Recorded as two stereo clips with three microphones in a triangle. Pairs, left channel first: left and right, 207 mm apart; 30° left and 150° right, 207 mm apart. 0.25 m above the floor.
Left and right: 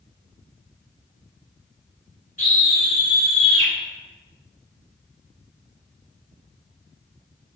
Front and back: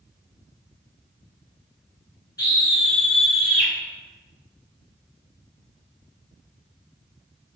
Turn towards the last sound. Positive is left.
turn(degrees=135)